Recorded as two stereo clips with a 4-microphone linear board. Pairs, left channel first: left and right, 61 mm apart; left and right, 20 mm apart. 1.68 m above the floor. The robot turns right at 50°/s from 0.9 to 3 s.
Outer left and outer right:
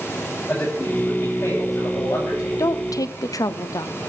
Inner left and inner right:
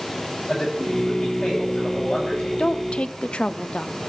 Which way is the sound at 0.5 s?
15° left.